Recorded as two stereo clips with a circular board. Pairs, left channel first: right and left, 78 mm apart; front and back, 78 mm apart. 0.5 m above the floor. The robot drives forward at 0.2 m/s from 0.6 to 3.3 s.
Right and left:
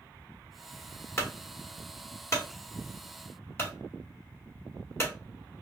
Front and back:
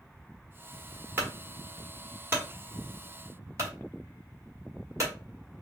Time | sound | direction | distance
1.2 | a clunk | 125° right | 1.4 m